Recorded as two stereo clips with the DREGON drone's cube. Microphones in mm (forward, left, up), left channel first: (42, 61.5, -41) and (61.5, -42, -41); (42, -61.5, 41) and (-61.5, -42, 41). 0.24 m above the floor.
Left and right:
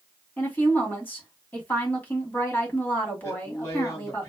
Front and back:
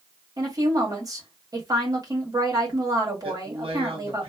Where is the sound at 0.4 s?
160° left, 1.8 m.